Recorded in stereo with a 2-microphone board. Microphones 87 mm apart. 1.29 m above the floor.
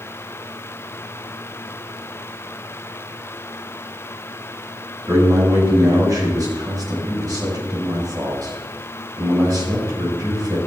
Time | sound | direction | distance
5.1 | a man speaking | 45° right (ahead or behind) | 6.5 m